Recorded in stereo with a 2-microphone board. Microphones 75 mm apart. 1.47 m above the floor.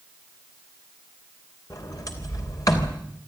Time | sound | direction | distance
1.7 | a sliding door | 55° left (ahead or behind) | 3 m